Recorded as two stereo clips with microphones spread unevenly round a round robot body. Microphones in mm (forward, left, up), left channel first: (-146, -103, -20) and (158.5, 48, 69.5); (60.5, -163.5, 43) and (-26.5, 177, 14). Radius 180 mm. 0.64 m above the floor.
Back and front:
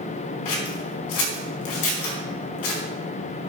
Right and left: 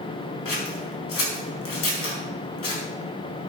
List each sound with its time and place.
0.5 s scissors: 130° right, 4 m